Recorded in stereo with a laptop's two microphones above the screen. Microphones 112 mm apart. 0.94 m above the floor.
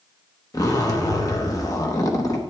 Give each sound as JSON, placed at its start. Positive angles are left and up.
{"t": 0.5, "sound": "a zipper", "side_deg": 30, "distance_m": 0.8}